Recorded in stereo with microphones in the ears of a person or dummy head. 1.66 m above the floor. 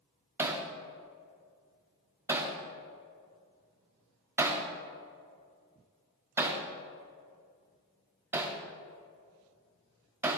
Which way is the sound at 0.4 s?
10° right (ahead or behind).